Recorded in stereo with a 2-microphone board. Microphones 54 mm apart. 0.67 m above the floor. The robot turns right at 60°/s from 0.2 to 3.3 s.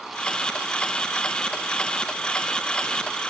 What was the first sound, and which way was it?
Only background noise.